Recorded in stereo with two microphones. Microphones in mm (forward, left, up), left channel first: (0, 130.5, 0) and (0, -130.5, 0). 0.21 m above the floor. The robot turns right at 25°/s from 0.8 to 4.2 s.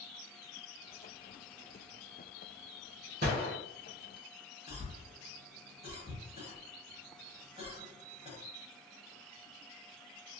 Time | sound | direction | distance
3.2 | a gunshot | 40° right (ahead or behind) | 1.6 m
4.7 | a cough | 25° right (ahead or behind) | 1.1 m